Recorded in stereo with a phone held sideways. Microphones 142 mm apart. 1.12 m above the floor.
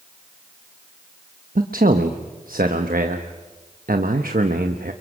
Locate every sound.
1.6 s a man speaking: 90° right, 1.0 m